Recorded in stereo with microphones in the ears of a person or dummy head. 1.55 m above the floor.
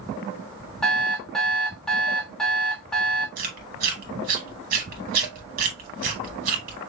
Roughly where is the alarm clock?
Centre.